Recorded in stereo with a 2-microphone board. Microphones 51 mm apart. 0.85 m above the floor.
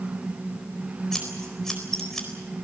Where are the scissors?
5° left (ahead or behind), 4 m.